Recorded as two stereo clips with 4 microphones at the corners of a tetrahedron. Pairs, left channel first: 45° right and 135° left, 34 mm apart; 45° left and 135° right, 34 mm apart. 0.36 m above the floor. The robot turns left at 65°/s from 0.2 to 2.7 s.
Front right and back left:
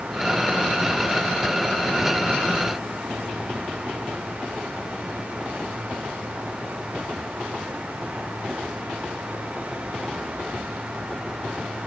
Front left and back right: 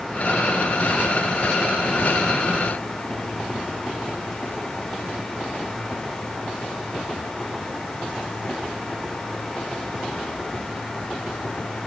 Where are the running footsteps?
I don't hear running footsteps.